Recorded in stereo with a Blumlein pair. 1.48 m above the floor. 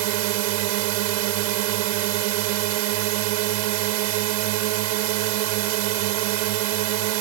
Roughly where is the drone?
Ahead right.